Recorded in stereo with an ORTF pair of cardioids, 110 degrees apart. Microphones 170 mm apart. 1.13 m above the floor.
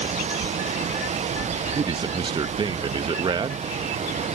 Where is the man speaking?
25° right.